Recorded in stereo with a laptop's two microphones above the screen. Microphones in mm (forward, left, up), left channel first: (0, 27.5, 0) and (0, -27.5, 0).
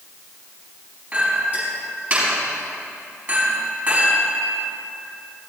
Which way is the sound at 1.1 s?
30° right (ahead or behind).